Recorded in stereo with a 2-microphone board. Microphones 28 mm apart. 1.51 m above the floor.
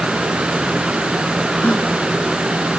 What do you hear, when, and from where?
1.6 s a gasp: 60° left (ahead or behind)